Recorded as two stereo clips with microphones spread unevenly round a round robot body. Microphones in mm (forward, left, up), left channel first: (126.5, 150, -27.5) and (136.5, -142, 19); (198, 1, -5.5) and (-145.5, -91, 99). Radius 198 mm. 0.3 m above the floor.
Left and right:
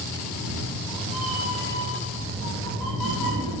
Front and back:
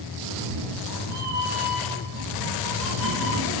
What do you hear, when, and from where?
0.2 s a cat meowing: 155° right, 3.5 m; by 3.6 s 130° right, 4.5 m